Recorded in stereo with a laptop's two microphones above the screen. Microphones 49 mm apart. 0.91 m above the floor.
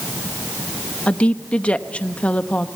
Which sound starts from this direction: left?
A woman speaking, at 1.1 s.